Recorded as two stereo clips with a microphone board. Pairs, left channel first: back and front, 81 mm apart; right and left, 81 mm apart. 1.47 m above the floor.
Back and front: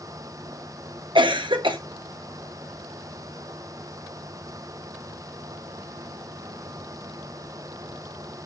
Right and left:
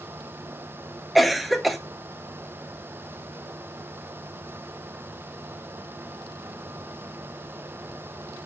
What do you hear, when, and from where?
1.1 s a cough: straight ahead, 1.4 m